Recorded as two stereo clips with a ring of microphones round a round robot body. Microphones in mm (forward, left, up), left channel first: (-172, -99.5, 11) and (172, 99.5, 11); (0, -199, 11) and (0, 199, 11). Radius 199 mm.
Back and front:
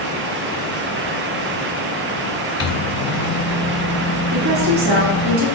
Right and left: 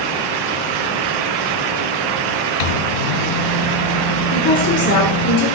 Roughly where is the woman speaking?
Ahead right.